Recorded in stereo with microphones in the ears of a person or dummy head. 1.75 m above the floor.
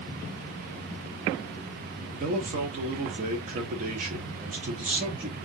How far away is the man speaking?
About 0.8 m.